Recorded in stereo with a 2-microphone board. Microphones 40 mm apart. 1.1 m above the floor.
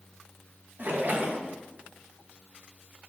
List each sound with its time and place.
0.8 s a splash: 45° right (ahead or behind), 0.6 m